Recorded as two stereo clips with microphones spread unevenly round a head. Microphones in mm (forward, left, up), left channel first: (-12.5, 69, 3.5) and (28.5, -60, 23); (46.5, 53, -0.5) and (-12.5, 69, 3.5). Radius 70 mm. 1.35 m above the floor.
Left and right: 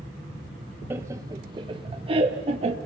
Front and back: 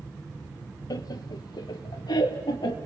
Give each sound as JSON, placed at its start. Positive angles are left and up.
{"t": 0.9, "sound": "laughter", "azimuth_deg": 0, "distance_m": 1.0}